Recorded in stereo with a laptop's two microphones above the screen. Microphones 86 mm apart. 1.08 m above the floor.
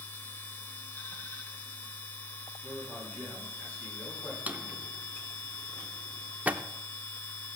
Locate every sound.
0.0 s a machine running: 25° left (ahead or behind), 2.0 m
2.6 s a man speaking: 25° left (ahead or behind), 7 m
4.5 s a drawer: 20° right (ahead or behind), 0.7 m